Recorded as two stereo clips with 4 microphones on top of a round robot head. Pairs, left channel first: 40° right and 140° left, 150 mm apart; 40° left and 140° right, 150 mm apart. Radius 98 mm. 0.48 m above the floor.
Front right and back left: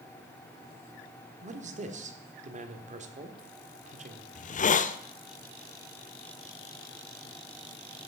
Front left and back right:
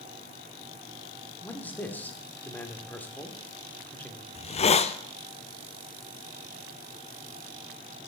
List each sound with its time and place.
1.4 s a man speaking: 120° left, 1.4 m
4.3 s a hiss: 5° right, 0.6 m